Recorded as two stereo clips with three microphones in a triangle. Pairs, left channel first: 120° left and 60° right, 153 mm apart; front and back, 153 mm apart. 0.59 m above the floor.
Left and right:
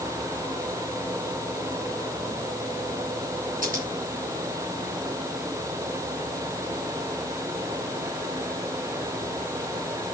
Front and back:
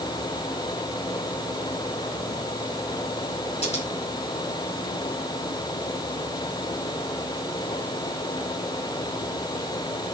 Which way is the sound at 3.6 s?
40° right.